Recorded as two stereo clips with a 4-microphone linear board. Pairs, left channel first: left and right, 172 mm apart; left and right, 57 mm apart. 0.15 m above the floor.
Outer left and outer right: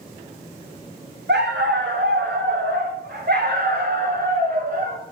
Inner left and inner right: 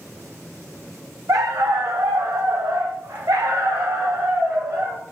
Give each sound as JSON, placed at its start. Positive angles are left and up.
{"t": 1.3, "sound": "a dog barking", "side_deg": -80, "distance_m": 2.5}